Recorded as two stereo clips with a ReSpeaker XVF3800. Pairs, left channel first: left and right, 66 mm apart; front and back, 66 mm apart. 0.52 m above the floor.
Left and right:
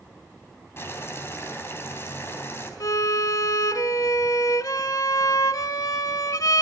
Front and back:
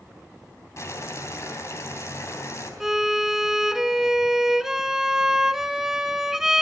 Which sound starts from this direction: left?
A violin, at 2.8 s.